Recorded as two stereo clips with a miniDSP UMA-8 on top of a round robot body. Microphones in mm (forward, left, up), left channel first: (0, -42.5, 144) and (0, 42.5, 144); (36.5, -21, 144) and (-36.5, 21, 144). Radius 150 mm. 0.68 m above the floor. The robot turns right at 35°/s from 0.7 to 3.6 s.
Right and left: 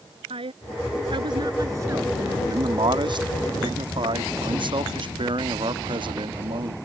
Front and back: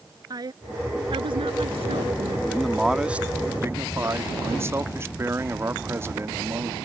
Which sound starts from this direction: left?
A woman speaking, at 0.3 s.